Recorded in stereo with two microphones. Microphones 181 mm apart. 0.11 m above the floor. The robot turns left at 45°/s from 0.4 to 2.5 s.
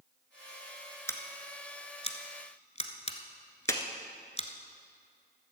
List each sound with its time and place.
1.1 s scissors: 15° left (ahead or behind), 1.1 m; by 4.5 s 35° left (ahead or behind), 1.1 m
3.7 s a clap: 15° left (ahead or behind), 1.2 m